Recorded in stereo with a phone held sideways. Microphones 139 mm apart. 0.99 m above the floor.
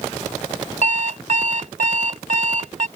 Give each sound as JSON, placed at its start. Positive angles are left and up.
{"t": 0.8, "sound": "an alarm clock", "side_deg": -65}